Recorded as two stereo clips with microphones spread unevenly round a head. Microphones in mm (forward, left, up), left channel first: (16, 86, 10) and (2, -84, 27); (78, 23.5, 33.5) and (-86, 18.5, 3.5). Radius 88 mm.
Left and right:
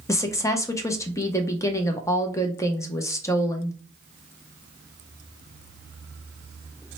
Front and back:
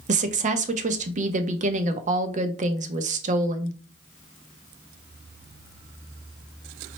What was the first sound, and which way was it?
A woman speaking, 155° left.